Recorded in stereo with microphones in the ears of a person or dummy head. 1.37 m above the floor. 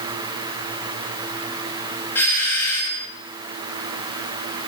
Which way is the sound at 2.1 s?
15° left (ahead or behind).